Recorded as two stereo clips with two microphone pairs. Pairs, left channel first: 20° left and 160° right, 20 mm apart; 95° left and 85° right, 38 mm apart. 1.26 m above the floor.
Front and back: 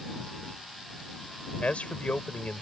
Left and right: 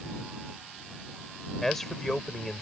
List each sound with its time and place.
1.6 s a man speaking: 15° left